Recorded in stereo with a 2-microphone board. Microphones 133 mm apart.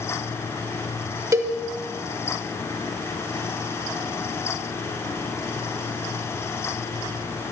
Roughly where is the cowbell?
Right.